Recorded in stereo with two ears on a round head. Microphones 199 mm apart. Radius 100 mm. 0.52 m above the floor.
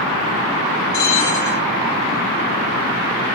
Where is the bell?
45° left (ahead or behind), 2.5 m.